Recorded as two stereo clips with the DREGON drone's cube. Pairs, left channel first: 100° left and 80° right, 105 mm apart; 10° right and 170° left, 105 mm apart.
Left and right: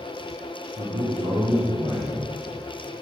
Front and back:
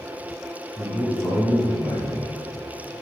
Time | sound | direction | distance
0.8 | a man speaking | 100° right | 2.5 m